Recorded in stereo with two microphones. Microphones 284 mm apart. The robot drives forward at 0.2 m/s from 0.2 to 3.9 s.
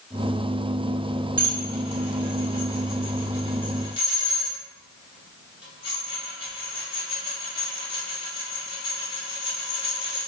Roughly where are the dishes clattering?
Left.